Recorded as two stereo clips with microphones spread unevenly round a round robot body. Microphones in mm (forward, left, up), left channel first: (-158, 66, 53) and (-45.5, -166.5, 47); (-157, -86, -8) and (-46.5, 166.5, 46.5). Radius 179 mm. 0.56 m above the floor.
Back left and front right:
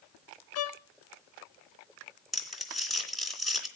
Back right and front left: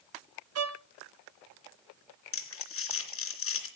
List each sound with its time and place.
0.6 s a violin: 100° left, 0.8 m
2.3 s crumpling: 155° right, 3 m